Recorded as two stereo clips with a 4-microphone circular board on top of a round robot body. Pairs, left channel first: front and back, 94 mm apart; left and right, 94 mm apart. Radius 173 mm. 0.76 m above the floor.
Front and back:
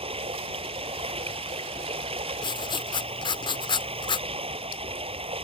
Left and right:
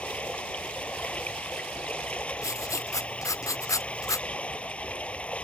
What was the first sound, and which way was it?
Running water, 165° left.